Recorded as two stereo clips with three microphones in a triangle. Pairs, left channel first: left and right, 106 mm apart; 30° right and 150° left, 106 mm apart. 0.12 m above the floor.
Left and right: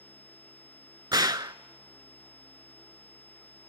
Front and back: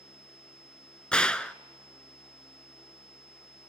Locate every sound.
1.1 s a gunshot: 105° right, 0.5 m